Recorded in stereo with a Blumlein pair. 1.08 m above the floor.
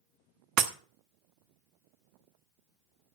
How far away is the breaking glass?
About 1.0 m.